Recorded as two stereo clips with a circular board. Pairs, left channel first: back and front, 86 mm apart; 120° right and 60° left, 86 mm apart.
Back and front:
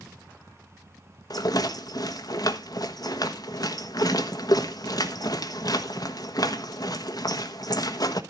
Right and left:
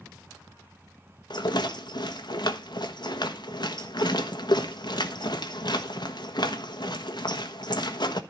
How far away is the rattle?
About 1.4 m.